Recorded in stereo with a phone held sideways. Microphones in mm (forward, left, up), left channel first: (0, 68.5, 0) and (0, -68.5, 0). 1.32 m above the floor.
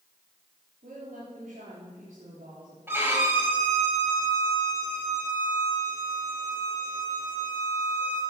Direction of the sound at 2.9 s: 15° right (ahead or behind).